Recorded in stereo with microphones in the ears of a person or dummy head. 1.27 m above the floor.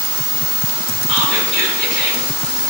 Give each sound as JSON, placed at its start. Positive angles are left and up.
{"t": 1.1, "sound": "whispering", "side_deg": 70, "distance_m": 3.5}